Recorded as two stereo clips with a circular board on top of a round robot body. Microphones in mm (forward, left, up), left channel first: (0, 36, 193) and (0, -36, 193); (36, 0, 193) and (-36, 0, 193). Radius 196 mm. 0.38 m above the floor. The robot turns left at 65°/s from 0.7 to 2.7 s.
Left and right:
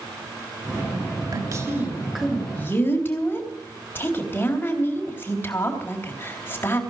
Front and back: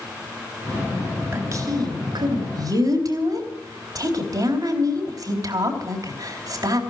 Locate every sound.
1.3 s a woman speaking: 120° right, 3.5 m; by 6.8 s 150° left, 3.5 m